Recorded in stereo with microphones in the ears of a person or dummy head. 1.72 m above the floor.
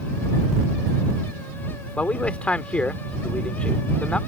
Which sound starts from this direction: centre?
A man speaking, at 2.0 s.